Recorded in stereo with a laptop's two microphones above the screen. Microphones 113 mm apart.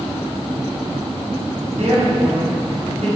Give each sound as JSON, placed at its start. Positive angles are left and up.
{"t": 1.7, "sound": "a woman speaking", "side_deg": -60, "distance_m": 3.5}